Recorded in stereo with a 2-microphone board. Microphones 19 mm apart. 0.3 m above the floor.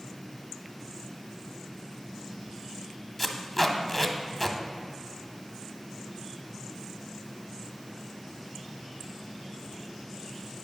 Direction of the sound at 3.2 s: 5° left (ahead or behind).